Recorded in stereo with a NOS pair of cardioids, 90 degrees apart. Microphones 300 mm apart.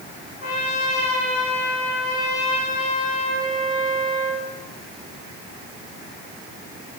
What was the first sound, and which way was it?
A trumpet, 30° left.